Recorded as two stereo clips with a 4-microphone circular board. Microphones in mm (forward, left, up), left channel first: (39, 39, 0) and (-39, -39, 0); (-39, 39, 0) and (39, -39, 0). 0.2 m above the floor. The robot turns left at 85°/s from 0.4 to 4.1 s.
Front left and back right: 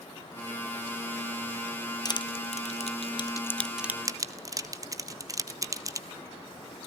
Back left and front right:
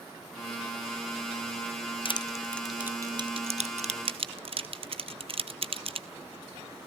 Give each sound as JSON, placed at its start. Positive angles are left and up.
{"t": 2.0, "sound": "crushing", "azimuth_deg": 100, "distance_m": 0.9}